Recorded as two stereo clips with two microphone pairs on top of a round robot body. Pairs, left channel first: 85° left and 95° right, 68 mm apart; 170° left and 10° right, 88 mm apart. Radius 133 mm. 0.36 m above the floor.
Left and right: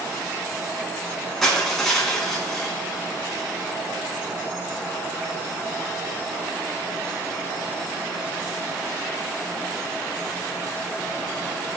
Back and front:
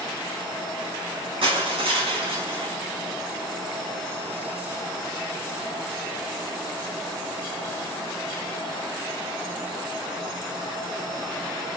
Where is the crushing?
Straight ahead, 4 m.